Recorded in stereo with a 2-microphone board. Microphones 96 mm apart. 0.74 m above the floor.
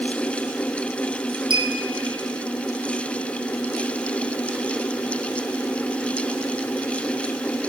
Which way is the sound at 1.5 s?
55° right (ahead or behind).